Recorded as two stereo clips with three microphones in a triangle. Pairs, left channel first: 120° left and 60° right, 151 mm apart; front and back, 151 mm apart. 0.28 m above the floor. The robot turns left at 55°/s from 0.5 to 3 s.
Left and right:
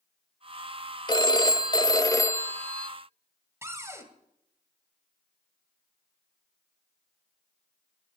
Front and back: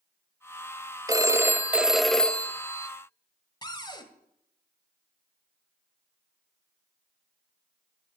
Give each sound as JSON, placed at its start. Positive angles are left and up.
{"t": 1.1, "sound": "a phone ringing", "azimuth_deg": 140, "distance_m": 0.5}
{"t": 3.6, "sound": "a cupboard door", "azimuth_deg": -10, "distance_m": 1.3}